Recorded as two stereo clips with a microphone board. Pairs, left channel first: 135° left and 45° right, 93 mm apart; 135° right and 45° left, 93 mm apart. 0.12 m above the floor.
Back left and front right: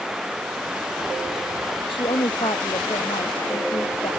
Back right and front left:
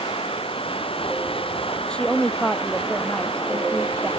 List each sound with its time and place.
0.0 s running water: 130° right
1.9 s a woman speaking: 145° left